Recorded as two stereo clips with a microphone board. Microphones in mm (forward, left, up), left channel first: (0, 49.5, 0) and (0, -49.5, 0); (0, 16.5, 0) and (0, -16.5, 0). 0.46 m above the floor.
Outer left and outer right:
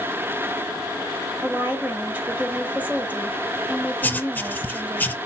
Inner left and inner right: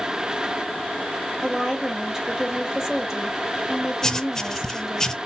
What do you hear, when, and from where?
1.4 s a woman speaking: 15° right (ahead or behind), 2.5 m
4.0 s writing: 15° left (ahead or behind), 0.6 m